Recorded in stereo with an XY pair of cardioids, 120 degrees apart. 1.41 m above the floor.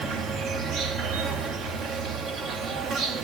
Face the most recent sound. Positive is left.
turn(degrees=-70)